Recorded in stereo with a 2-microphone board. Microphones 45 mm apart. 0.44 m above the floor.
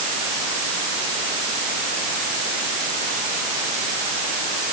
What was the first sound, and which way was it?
Only background noise.